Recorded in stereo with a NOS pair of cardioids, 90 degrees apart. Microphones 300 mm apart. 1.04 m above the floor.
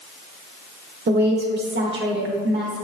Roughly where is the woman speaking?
Ahead right.